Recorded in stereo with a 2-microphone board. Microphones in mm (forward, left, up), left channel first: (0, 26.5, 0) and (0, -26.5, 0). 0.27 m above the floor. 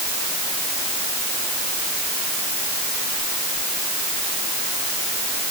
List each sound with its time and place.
Only background noise.